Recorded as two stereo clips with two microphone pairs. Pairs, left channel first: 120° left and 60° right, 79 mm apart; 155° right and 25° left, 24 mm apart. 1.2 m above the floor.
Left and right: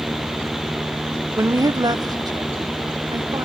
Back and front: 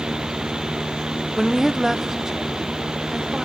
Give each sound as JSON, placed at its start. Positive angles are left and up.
{"t": 1.4, "sound": "a woman speaking", "azimuth_deg": -55, "distance_m": 0.6}